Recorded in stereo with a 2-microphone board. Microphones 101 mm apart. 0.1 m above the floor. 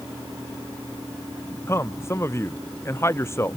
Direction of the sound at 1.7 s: 25° left (ahead or behind).